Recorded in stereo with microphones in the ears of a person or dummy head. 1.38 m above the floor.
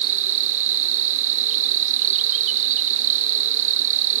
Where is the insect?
35° right (ahead or behind).